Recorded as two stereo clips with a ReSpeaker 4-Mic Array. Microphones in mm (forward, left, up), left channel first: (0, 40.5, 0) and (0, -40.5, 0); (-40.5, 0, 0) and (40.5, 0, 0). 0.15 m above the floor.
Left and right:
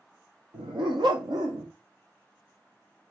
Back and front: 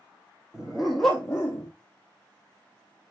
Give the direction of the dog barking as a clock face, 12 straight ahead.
3 o'clock.